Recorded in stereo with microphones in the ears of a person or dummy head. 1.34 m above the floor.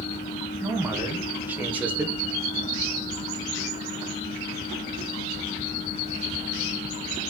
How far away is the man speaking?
About 1.2 m.